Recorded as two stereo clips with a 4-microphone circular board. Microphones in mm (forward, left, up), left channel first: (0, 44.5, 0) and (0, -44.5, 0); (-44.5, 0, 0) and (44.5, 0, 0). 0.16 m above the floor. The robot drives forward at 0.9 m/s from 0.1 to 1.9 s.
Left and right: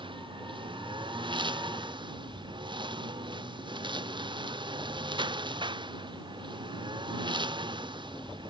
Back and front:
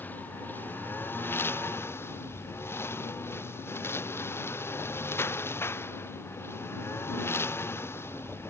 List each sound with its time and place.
0.0 s a lawn mower: 110° right; by 8.5 s 115° right